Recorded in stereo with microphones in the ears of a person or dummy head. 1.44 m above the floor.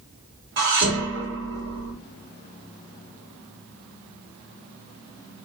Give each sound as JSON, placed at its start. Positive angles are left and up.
{"t": 0.6, "sound": "dishes clattering", "side_deg": -60, "distance_m": 1.6}